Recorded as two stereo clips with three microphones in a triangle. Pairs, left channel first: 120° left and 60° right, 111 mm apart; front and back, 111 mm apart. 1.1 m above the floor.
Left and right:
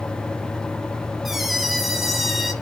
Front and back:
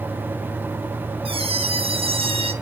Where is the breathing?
No breathing in this recording.